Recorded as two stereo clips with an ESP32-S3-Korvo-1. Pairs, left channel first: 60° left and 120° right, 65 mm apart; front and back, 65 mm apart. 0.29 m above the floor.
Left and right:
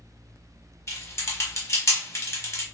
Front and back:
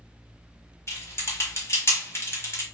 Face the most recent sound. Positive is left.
turn(degrees=35)